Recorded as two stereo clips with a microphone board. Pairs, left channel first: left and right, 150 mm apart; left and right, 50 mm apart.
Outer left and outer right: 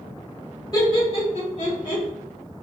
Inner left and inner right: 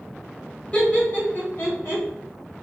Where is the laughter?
25° left (ahead or behind), 1.8 m; by 2.0 s 55° left (ahead or behind), 2.5 m.